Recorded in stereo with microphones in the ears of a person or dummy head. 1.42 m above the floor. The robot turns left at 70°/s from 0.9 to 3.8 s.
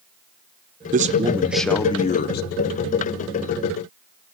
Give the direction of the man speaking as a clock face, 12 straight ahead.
4 o'clock.